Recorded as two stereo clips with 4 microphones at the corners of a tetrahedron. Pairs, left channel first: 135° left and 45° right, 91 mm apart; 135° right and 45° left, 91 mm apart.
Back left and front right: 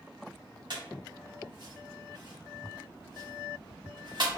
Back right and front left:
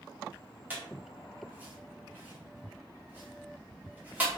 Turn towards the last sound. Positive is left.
turn(degrees=-25)